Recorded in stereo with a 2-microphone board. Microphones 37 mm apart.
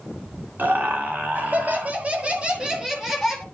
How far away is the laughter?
About 2 m.